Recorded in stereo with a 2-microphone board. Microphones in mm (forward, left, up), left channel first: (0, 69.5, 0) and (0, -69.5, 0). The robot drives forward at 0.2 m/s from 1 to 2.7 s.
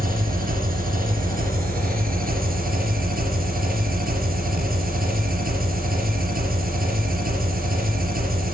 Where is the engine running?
80° right, 4.5 m; by 8.5 s 85° right, 4.5 m.